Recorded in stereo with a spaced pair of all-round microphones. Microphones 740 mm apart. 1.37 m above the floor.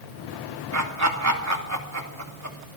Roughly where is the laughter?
Right.